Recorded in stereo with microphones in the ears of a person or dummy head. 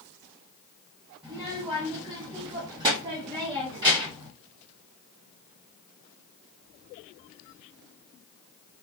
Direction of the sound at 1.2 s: 15° right (ahead or behind).